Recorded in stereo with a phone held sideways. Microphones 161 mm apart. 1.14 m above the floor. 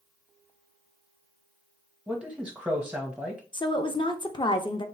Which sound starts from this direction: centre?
A man speaking, at 2.1 s.